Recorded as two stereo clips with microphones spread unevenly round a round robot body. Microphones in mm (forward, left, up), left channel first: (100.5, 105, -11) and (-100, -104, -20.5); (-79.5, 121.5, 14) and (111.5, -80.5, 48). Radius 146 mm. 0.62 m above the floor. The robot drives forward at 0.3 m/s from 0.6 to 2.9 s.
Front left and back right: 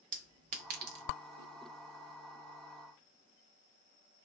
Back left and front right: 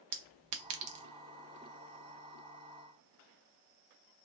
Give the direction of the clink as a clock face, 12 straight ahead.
2 o'clock.